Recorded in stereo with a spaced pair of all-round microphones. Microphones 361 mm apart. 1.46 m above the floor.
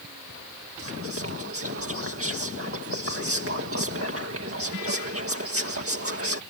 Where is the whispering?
40° right (ahead or behind).